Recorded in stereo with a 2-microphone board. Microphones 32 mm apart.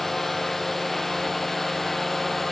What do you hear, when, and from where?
0.0 s a drone: 5° left (ahead or behind)